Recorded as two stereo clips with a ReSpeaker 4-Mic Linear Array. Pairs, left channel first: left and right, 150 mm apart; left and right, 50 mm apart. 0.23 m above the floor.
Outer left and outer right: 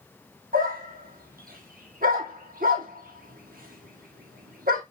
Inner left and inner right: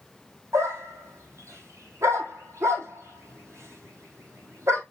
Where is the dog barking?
75° right (ahead or behind), 2 m.